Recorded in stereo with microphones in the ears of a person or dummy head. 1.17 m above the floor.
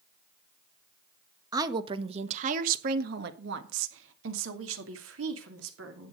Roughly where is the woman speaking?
Centre.